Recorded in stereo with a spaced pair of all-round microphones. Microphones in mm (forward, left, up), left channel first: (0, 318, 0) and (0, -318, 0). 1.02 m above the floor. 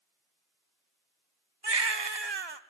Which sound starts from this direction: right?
A baby crying, at 1.6 s.